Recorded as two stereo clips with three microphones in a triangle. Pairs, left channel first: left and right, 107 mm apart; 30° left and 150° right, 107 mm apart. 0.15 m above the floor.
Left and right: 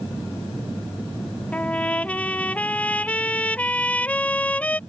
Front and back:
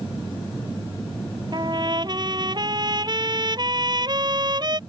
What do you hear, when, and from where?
1.5 s a trumpet: 165° left